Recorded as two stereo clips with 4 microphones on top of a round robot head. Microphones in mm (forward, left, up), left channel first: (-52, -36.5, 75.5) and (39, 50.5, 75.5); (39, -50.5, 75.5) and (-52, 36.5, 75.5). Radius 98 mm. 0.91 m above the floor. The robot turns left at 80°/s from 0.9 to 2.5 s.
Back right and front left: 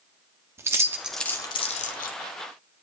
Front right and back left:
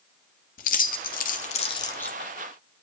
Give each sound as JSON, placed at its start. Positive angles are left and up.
{"t": 0.6, "sound": "keys jangling", "azimuth_deg": -30, "distance_m": 0.9}